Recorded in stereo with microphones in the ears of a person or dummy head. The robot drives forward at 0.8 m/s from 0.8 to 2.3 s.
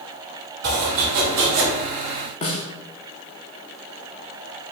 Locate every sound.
0.6 s chopping: 50° right (ahead or behind), 1.6 m; by 1.7 s 60° right (ahead or behind), 1.4 m
2.4 s a snare drum: 30° left (ahead or behind), 0.8 m